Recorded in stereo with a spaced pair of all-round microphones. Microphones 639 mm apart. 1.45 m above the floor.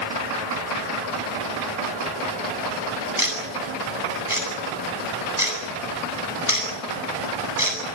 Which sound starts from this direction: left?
Ticking, at 3.2 s.